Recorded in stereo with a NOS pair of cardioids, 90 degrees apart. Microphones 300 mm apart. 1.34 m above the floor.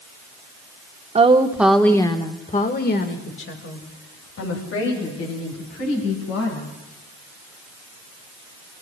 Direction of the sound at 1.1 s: 20° right.